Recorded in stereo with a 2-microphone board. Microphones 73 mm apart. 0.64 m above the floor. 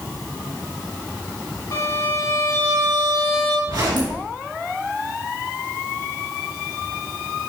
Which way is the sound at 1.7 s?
55° left (ahead or behind).